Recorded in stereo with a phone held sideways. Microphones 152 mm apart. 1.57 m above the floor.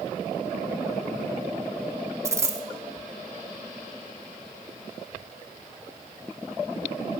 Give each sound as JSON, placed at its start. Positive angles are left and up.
{"t": 2.2, "sound": "a dropped coin", "side_deg": -20, "distance_m": 1.7}